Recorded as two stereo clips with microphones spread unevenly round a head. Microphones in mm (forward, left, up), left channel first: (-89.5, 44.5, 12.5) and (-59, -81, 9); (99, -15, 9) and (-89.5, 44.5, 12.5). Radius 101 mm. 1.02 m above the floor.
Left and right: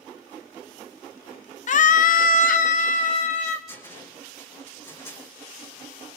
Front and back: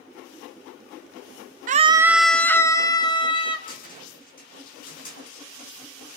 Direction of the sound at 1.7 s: 120° left.